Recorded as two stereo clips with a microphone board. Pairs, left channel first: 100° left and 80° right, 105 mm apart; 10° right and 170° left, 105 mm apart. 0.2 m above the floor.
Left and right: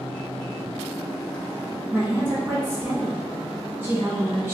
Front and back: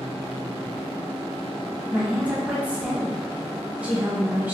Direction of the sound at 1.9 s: 120° right.